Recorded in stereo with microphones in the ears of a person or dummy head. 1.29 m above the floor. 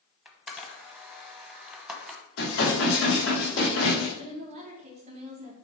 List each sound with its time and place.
0.2 s a camera shutter: 5° right (ahead or behind), 0.9 m
2.4 s dishes clattering: 75° left (ahead or behind), 3.5 m
4.2 s a woman speaking: 35° right (ahead or behind), 1.7 m